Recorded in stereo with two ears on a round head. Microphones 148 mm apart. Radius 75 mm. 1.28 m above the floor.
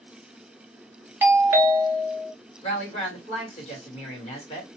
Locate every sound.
1.2 s a doorbell: 15° right (ahead or behind), 0.6 m
2.6 s a woman speaking: 40° left (ahead or behind), 1.5 m